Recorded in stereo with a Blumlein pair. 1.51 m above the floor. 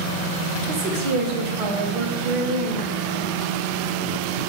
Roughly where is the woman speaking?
Ahead right.